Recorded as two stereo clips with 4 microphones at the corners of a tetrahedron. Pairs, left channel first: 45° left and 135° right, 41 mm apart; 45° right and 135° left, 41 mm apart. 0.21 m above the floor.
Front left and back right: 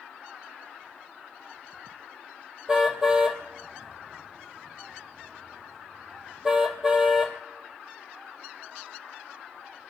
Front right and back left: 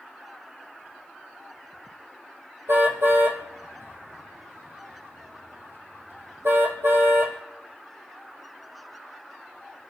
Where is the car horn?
150° left, 3 m.